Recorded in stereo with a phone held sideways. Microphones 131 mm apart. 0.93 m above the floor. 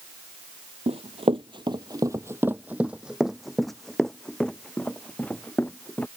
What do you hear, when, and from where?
0.9 s running footsteps: 50° right (ahead or behind); by 6.1 s 15° left (ahead or behind)